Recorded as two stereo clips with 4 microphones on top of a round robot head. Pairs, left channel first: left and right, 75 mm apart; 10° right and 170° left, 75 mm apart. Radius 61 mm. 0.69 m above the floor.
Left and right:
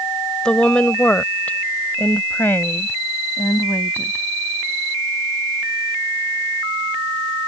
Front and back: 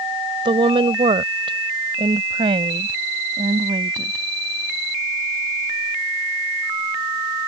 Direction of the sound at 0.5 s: 170° left.